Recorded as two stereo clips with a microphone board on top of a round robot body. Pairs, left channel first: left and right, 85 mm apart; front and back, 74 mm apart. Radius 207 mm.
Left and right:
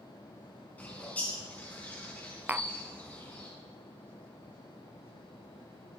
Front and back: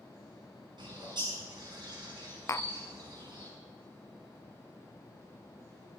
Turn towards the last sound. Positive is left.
turn(degrees=-25)